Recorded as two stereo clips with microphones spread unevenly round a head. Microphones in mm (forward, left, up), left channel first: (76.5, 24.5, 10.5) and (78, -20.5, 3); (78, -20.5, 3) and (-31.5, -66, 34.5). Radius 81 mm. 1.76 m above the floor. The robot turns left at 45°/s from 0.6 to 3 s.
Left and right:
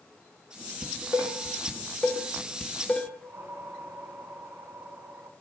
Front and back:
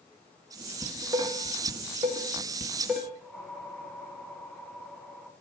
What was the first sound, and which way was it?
Dishes clattering, 130° right.